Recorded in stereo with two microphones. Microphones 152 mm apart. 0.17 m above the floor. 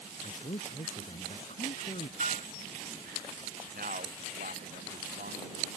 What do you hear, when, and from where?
0.2 s a man speaking: 45° left (ahead or behind)
2.2 s a piano: 50° right (ahead or behind)
3.7 s a man speaking: 70° right (ahead or behind)